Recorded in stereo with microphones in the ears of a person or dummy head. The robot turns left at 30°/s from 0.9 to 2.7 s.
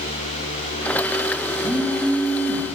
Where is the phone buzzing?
175° right, 1.0 m; by 2.6 s 155° left, 1.0 m.